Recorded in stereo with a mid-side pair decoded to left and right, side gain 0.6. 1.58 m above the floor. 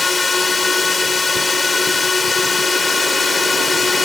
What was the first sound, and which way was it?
A drone, 15° left.